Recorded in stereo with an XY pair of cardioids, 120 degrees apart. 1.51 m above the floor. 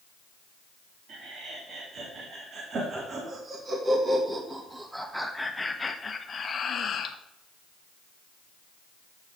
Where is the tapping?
No tapping in this recording.